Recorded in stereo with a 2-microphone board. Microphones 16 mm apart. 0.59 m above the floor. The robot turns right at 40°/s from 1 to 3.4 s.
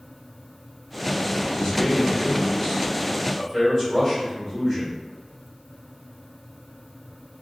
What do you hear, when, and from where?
1.5 s a man speaking: 95° left, 1.7 m; by 4.9 s 170° left, 1.7 m